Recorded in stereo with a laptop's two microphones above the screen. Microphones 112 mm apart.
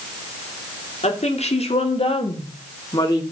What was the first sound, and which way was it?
A woman speaking, 75° left (ahead or behind).